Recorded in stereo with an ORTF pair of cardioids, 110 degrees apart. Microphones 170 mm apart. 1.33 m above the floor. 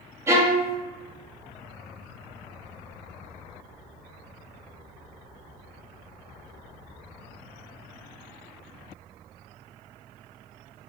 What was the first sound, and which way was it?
A violin, 15° right.